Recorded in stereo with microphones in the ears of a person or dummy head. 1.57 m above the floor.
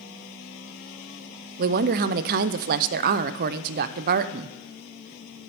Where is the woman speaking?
55° right (ahead or behind), 0.5 m.